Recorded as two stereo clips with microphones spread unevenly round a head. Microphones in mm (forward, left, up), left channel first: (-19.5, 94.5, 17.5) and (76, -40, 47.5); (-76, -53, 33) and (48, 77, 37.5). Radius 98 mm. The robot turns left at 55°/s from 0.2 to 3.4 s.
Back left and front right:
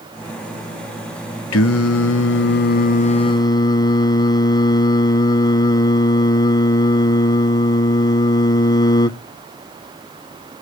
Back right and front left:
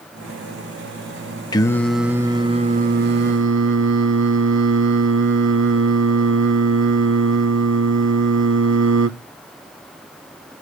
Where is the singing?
160° left, 0.7 m; by 9.1 s 55° left, 0.7 m.